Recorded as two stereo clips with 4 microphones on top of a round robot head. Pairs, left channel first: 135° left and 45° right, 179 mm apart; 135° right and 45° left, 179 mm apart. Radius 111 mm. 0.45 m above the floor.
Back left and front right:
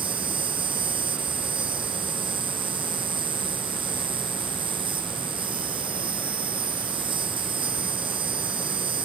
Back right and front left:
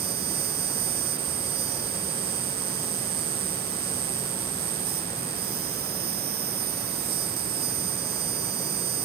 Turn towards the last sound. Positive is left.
turn(degrees=15)